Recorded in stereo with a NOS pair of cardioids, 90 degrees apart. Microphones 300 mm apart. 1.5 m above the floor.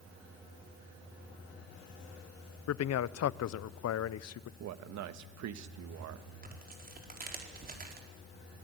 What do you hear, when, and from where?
2.7 s a man speaking: 60° left, 0.8 m
4.6 s a man speaking: 65° right, 1.5 m
6.4 s tearing paper: 30° right, 4.5 m